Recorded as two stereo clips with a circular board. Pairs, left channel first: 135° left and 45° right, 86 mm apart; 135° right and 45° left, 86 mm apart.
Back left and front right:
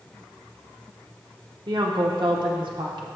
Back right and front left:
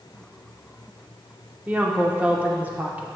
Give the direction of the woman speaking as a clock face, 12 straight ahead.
1 o'clock.